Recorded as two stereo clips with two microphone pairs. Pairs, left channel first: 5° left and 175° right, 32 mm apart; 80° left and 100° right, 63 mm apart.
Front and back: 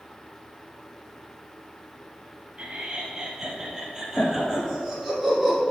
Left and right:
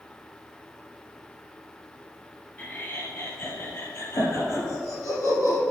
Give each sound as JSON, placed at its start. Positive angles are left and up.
{"t": 2.6, "sound": "laughter", "azimuth_deg": 145, "distance_m": 1.9}